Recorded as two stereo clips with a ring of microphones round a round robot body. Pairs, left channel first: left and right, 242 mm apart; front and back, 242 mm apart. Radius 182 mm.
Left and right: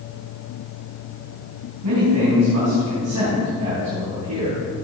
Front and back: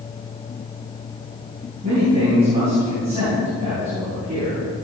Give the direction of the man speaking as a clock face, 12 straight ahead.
4 o'clock.